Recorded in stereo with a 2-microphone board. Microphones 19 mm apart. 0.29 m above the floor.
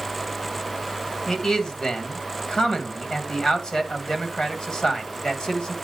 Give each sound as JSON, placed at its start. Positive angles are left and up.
{"t": 1.3, "sound": "a man speaking", "side_deg": 35, "distance_m": 1.9}